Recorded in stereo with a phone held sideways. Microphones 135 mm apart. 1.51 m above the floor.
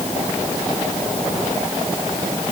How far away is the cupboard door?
No cupboard door in this recording.